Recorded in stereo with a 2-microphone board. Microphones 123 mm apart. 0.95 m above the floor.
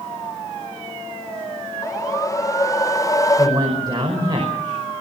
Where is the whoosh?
25° left (ahead or behind), 0.5 m.